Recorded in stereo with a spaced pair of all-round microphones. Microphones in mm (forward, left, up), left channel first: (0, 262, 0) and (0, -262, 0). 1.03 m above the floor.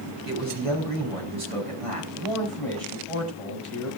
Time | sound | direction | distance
0.2 | a man speaking | 85° right | 8.5 m
2.2 | a man speaking | 70° right (ahead or behind) | 6 m